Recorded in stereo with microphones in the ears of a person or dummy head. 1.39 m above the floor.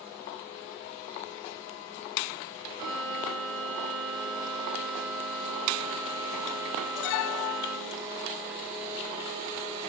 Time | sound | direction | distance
2.8 | a violin | 45° right (ahead or behind) | 1.2 m